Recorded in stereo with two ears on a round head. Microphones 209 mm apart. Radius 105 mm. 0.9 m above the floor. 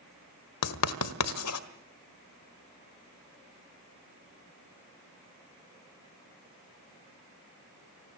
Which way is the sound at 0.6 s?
75° left (ahead or behind).